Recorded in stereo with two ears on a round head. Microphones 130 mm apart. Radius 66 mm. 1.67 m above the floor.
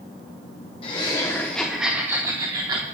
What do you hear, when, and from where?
0.8 s laughter: 40° left (ahead or behind), 1.3 m; by 2.9 s 35° right (ahead or behind), 1.8 m